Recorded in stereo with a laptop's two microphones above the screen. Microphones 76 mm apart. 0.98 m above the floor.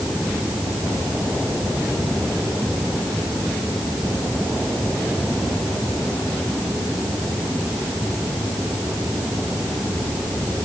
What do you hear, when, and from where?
Only background noise.